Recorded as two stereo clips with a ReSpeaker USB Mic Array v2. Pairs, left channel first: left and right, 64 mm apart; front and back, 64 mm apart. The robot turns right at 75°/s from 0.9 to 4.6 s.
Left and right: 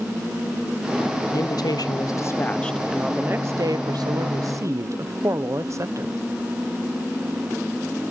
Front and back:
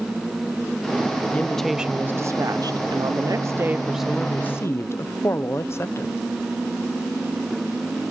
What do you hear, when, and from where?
1.3 s a woman speaking: 65° left, 0.9 m; by 6.2 s 50° right, 0.9 m